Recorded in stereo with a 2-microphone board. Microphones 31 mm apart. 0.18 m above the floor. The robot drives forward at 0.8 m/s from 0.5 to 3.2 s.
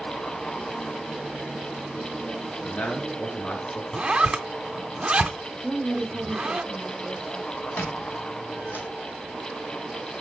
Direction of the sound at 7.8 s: 90° left.